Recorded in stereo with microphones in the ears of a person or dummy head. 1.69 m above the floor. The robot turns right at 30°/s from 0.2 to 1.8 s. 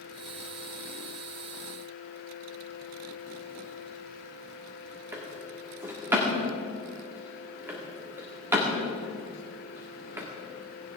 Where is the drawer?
10° right (ahead or behind), 1.8 m.